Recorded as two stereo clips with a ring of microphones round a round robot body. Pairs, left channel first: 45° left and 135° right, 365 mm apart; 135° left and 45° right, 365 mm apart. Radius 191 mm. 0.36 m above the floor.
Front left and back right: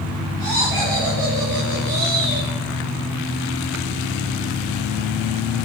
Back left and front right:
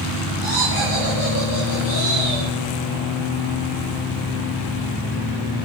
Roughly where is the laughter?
Behind.